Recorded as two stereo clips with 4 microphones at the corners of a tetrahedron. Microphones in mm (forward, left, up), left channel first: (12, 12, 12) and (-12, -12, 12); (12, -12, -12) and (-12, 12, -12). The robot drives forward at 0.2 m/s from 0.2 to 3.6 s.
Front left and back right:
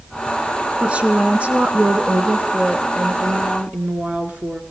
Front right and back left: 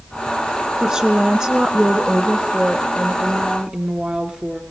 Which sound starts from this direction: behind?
A woman speaking, at 0.8 s.